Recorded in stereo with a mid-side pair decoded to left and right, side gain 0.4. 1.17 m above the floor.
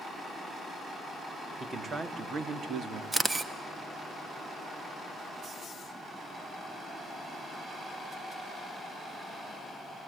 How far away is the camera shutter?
About 1.2 m.